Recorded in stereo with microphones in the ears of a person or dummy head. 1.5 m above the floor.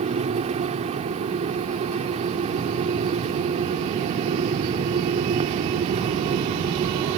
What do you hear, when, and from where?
0.0 s a fan: 35° right (ahead or behind)